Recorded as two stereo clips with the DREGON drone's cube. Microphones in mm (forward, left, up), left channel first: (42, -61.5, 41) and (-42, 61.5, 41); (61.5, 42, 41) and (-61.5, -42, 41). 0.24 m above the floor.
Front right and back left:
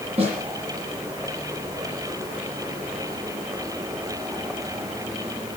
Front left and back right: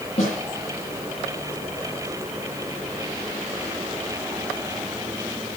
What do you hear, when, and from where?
0.2 s a snare drum: 75° left, 10 m